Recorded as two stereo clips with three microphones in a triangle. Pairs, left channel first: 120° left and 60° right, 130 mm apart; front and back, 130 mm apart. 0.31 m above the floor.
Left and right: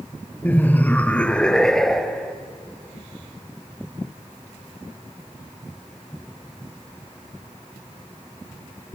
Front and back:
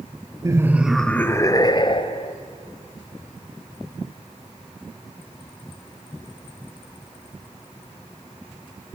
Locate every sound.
0.4 s laughter: straight behind, 0.9 m; by 2.3 s 30° left, 1.6 m